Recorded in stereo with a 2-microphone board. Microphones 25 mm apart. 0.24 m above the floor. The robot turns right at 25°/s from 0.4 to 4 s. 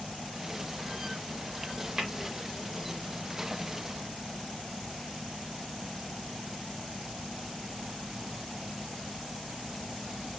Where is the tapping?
30° right (ahead or behind), 1.6 m; by 2.1 s 25° right (ahead or behind), 1.6 m.